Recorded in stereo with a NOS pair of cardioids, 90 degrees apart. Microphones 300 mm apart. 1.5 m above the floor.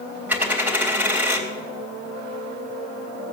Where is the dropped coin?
5° right, 3.5 m.